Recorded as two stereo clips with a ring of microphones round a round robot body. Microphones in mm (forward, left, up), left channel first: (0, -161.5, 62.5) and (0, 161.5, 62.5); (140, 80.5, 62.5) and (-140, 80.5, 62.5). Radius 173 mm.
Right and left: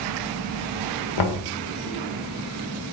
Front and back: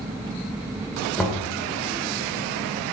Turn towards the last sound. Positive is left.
turn(degrees=-90)